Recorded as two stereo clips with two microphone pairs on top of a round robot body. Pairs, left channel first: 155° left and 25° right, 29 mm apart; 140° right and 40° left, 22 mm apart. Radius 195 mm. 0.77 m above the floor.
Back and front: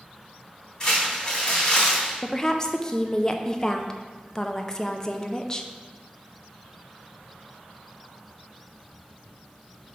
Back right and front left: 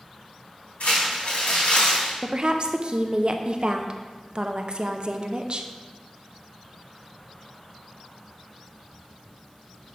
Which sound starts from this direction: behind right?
Crumpling, at 0.8 s.